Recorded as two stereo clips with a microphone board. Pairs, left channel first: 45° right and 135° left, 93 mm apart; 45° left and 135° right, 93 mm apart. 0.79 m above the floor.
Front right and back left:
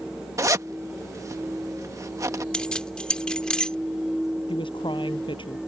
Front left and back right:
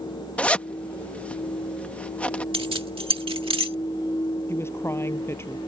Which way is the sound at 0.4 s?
115° left.